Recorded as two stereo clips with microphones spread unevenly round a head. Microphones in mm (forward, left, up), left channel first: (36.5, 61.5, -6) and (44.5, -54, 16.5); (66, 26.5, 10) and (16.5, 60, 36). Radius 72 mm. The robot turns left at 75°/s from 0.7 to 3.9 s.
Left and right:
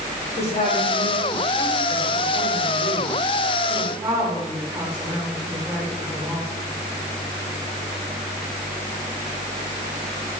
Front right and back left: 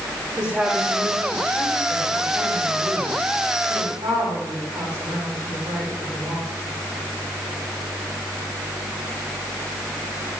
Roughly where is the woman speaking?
Left.